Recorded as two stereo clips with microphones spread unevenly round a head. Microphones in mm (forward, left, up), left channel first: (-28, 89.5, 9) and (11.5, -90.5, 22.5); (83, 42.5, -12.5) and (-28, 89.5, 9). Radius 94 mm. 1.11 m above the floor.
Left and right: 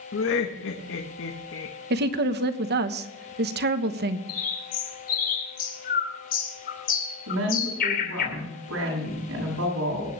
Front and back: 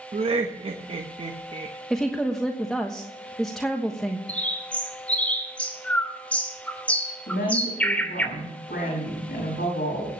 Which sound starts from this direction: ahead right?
A woman speaking, at 7.3 s.